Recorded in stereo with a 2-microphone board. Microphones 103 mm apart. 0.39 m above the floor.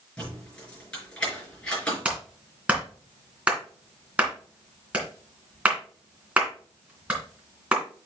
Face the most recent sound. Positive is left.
turn(degrees=-15)  # may be behind; listen again after turning